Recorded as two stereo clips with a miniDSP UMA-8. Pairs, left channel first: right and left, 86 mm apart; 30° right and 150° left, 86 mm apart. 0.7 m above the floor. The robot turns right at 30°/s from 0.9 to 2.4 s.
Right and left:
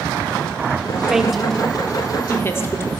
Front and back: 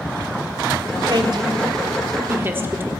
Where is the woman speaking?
175° left, 1.4 m; by 2.9 s 150° right, 1.4 m.